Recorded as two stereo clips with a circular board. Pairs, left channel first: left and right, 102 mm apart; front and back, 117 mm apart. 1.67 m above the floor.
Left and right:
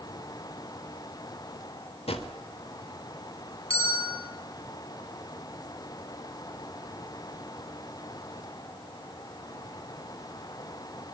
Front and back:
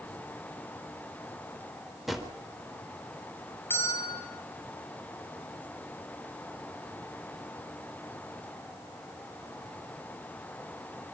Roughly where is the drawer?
Left.